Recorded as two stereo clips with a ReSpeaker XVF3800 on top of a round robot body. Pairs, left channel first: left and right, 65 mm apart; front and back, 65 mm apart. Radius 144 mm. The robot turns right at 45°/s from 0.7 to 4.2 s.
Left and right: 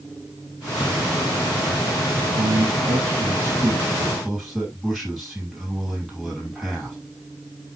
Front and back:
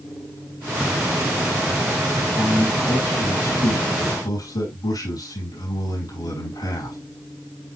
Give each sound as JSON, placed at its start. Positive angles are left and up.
{"t": 2.4, "sound": "a man speaking", "azimuth_deg": -85, "distance_m": 6.5}